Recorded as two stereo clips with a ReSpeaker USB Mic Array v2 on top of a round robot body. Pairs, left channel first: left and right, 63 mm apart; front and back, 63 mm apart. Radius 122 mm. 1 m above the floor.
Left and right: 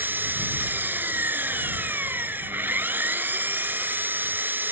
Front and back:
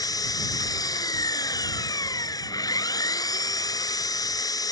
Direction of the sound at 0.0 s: 25° right.